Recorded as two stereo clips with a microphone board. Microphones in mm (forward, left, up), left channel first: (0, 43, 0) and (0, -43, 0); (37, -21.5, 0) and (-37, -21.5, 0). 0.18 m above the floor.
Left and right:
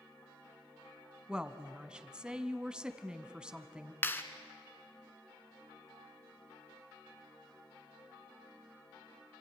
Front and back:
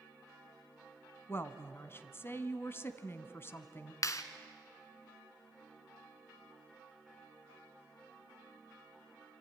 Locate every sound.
1.3 s a woman speaking: 20° right, 1.2 m
4.0 s a clap: 30° left, 1.3 m